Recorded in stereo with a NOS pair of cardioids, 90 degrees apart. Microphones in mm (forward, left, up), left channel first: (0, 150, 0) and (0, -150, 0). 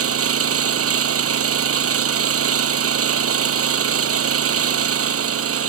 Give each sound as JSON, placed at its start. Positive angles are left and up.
{"t": 0.0, "sound": "an engine running", "azimuth_deg": -55}